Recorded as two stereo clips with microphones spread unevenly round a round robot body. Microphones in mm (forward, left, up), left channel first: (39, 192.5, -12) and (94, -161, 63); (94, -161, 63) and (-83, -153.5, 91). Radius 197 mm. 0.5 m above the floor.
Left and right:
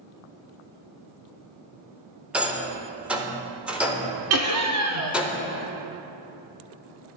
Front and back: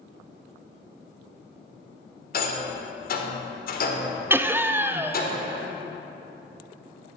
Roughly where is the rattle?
Ahead.